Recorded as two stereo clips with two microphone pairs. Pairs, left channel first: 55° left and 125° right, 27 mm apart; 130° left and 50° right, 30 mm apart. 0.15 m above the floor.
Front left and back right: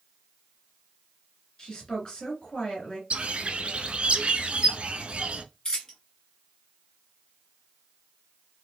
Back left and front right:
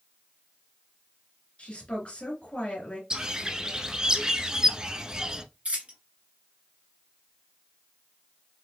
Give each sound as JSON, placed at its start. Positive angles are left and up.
{"t": 1.6, "sound": "a woman speaking", "azimuth_deg": 110, "distance_m": 2.5}
{"t": 3.1, "sound": "a bird", "azimuth_deg": -105, "distance_m": 0.6}
{"t": 5.7, "sound": "a dropped coin", "azimuth_deg": -10, "distance_m": 1.7}